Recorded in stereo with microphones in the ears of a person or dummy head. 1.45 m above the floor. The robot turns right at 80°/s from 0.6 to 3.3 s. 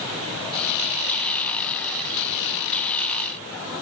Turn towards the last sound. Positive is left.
No sound to turn to.